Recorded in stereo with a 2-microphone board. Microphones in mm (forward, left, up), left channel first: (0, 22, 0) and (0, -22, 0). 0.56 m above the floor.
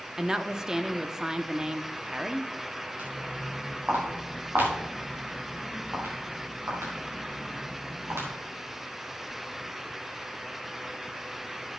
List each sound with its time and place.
0.2 s a woman speaking: 15° right (ahead or behind), 0.6 m
3.0 s footsteps: 45° right (ahead or behind), 5.5 m; by 8.3 s 80° right, 7 m